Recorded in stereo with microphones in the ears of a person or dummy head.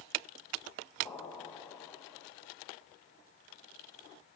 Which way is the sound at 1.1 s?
25° left (ahead or behind).